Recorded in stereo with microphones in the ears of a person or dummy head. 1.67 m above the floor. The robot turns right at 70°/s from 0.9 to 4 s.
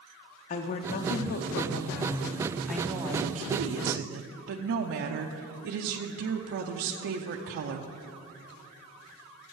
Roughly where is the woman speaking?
Ahead left.